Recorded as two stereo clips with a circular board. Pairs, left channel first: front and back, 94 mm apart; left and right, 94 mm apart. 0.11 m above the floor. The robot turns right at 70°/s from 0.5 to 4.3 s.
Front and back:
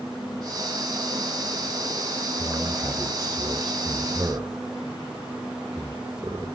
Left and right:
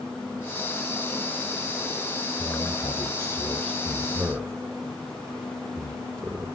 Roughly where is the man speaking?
Left.